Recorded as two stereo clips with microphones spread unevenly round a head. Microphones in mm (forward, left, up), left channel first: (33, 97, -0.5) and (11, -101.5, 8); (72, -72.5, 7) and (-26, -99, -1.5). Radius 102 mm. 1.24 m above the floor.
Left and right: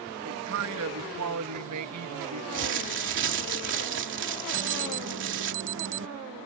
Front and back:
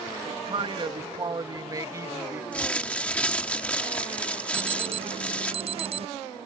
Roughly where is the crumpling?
Ahead right.